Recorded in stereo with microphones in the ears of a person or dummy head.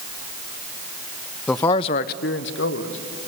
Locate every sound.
1.5 s a man speaking: 10° left (ahead or behind), 0.6 m; by 3.0 s 80° left, 1.7 m